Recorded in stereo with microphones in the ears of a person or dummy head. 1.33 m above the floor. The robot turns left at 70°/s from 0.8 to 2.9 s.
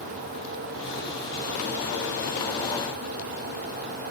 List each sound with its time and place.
Only background noise.